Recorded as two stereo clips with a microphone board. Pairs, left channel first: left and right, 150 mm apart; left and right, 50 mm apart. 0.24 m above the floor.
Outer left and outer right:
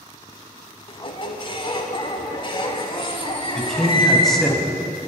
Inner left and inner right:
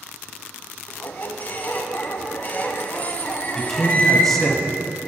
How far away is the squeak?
About 0.8 m.